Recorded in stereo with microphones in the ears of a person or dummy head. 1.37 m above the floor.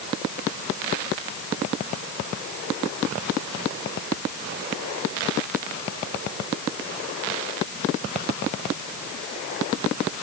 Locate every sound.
Only background noise.